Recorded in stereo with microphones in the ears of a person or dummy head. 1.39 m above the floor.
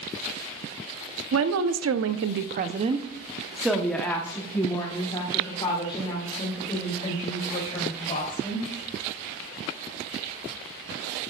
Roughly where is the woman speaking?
Right.